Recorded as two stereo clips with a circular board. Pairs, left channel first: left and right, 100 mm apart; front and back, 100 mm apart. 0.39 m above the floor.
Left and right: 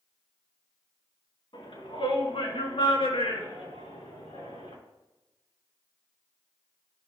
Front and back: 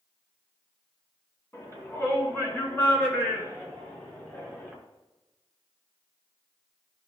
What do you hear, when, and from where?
1.5 s a shout: 60° left, 4.5 m; by 4.7 s 75° left, 6 m